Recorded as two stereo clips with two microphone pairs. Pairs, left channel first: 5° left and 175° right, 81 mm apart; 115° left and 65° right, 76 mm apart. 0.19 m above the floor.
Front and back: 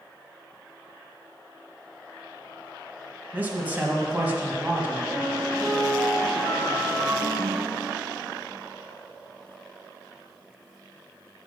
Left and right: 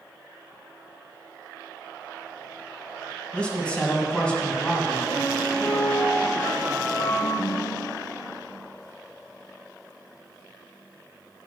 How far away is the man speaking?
About 1.3 m.